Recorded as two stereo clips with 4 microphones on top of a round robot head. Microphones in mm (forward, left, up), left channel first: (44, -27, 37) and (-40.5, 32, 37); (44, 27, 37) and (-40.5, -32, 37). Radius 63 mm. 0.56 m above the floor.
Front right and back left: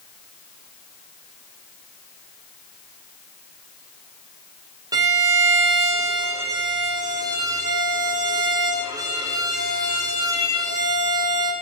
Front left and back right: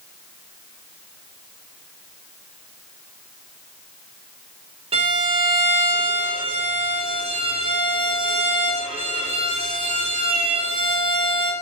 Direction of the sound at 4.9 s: 165° right.